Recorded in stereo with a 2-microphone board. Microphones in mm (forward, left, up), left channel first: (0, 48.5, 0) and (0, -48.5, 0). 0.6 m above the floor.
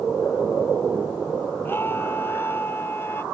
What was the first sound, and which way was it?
A scream, 20° left (ahead or behind).